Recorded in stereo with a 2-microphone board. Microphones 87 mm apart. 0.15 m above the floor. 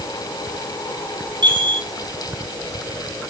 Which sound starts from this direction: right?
A chime, at 1.4 s.